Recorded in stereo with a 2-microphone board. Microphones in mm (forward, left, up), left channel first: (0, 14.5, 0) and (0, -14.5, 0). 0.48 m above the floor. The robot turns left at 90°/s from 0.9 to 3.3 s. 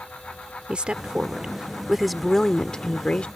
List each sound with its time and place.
0.7 s a woman speaking: 70° right; by 3.3 s 75° left